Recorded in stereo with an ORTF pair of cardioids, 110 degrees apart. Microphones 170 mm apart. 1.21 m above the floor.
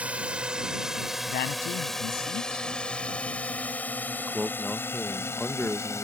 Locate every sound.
0.0 s a drone: 5° right; by 6.0 s 15° left
1.3 s a man speaking: 65° left
4.2 s a man speaking: 5° left